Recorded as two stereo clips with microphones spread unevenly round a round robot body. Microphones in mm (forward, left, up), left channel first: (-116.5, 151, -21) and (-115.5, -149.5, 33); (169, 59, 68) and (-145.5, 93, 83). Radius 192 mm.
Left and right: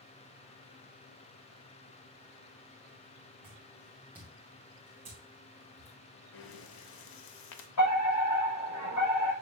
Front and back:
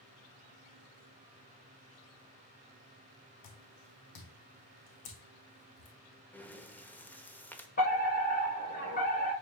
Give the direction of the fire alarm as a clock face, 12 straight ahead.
10 o'clock.